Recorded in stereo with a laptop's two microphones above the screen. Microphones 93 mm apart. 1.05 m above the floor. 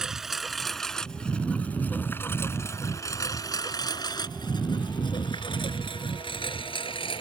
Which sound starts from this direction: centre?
A lawn mower, at 0.0 s.